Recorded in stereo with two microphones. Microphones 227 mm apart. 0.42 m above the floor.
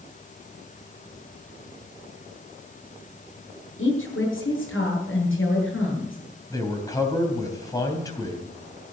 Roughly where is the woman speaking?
Left.